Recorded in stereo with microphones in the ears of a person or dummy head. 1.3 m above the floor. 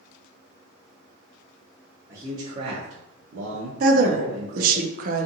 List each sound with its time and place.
2.1 s a man speaking: 20° right (ahead or behind), 0.7 m; by 4.8 s 50° right (ahead or behind), 1.0 m
3.8 s a woman speaking: 55° right (ahead or behind), 0.5 m